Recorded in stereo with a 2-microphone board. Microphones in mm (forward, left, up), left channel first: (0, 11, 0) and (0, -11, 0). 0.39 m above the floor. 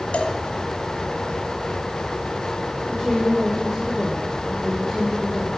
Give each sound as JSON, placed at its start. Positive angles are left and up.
{"t": 0.1, "sound": "a cowbell", "side_deg": 80, "distance_m": 0.9}
{"t": 2.9, "sound": "a woman speaking", "side_deg": -15, "distance_m": 1.6}